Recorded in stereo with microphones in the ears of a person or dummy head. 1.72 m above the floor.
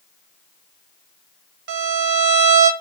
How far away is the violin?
About 0.7 m.